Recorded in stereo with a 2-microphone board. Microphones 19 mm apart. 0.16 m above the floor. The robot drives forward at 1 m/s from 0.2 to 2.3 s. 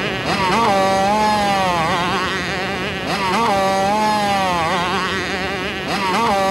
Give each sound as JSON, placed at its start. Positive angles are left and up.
{"t": 0.0, "sound": "a motorcycle", "side_deg": -15}